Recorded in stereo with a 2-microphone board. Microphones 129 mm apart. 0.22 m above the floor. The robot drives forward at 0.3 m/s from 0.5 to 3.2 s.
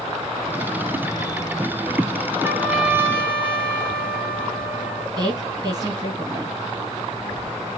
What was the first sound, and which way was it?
A trumpet, 15° right (ahead or behind).